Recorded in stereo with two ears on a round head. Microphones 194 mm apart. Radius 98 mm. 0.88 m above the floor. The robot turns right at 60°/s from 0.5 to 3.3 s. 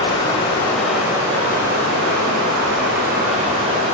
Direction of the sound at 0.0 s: 160° left.